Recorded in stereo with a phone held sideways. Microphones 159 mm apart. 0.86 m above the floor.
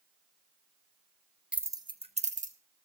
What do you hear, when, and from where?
1.5 s keys jangling: 5° right (ahead or behind), 0.8 m; by 2.5 s 55° right (ahead or behind), 1.3 m